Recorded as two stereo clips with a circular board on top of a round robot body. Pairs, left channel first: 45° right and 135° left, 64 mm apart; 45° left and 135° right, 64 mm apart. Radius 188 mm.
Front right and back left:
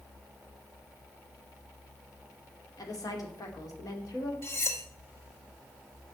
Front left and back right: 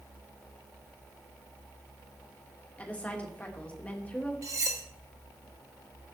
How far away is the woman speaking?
About 2.5 m.